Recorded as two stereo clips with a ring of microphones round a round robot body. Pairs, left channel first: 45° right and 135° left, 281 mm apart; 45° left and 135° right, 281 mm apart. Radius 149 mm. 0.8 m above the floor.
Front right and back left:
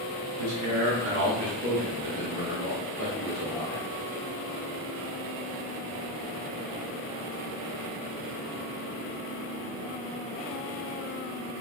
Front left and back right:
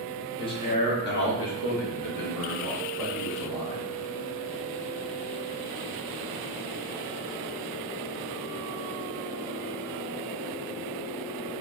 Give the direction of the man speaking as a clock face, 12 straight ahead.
8 o'clock.